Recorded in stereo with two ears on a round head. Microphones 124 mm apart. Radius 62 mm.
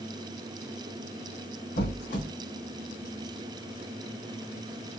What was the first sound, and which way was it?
A squeak, 75° left (ahead or behind).